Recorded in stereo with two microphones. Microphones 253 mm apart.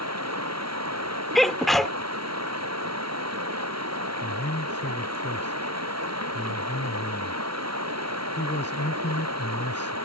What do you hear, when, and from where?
0.0 s running water: 85° right
1.4 s a sneeze: centre (ahead or behind)
4.2 s a man speaking: 45° left (ahead or behind)